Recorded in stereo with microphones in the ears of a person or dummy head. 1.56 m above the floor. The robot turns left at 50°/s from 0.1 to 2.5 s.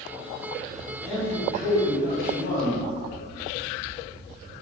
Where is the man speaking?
150° left, 1.7 m; by 2.8 s 80° left, 1.7 m.